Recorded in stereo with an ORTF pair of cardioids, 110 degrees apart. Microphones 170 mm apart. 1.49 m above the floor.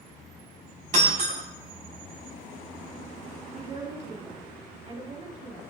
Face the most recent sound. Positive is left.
turn(degrees=-45)